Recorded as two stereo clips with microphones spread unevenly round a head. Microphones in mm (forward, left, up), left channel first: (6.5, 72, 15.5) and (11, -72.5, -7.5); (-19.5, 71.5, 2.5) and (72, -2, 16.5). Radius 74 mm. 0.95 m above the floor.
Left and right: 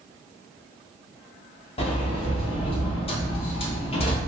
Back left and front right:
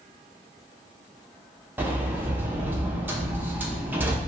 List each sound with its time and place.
1.8 s a sliding door: 40° left, 0.6 m